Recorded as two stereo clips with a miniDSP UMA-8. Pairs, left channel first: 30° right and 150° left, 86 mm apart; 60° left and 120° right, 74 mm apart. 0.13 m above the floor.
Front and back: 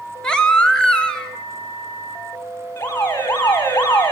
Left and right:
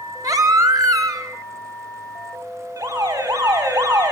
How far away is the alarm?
About 4.5 m.